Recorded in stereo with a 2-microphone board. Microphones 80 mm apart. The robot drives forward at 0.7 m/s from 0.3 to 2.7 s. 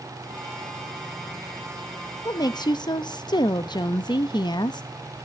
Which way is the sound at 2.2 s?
50° left (ahead or behind).